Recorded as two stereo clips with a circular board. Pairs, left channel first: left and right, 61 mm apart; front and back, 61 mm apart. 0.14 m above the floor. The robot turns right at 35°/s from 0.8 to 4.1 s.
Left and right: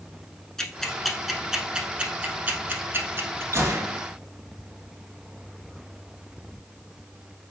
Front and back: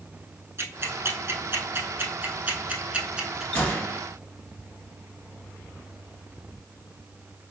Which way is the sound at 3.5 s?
60° right.